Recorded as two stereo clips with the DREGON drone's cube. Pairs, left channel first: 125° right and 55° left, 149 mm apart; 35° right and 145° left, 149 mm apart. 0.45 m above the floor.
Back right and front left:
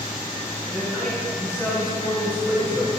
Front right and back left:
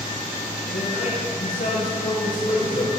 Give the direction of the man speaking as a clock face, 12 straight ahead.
1 o'clock.